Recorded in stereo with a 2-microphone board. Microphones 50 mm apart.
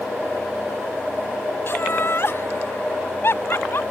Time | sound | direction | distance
1.7 | laughter | 50° left (ahead or behind) | ?